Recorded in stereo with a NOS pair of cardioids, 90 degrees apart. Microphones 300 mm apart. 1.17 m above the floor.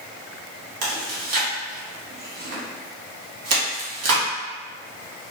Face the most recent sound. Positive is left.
turn(degrees=-65)